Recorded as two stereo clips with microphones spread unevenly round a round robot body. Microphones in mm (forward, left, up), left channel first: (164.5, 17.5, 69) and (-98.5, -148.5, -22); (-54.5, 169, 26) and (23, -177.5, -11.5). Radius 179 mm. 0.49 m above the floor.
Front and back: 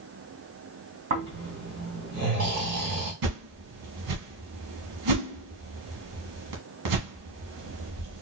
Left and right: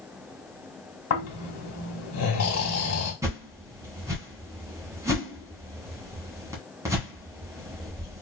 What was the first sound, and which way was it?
Snoring, 155° left.